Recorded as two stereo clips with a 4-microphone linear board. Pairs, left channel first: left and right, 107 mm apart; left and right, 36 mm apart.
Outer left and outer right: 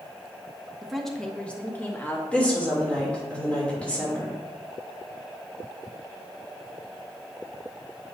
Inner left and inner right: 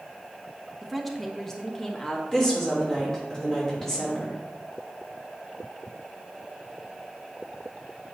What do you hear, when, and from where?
0.8 s a woman speaking: 5° right (ahead or behind), 0.9 m; by 2.2 s 20° left (ahead or behind), 1.4 m
2.3 s a woman speaking: 10° left (ahead or behind), 3 m